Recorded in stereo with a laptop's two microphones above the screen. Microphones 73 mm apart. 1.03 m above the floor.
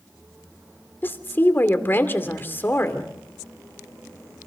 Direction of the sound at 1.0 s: 30° left (ahead or behind).